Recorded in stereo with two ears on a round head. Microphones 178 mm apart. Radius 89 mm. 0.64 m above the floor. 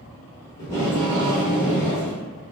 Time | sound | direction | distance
0.6 | tape being pulled | 15° left (ahead or behind) | 1.4 m